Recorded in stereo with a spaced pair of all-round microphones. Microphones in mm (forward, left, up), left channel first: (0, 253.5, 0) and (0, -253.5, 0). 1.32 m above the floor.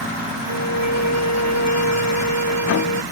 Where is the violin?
65° right (ahead or behind).